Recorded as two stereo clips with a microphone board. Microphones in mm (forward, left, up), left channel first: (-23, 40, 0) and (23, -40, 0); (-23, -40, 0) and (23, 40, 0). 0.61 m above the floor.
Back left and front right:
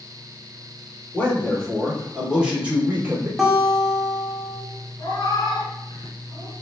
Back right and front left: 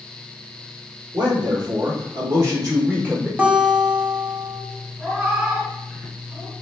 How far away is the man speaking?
About 1.6 m.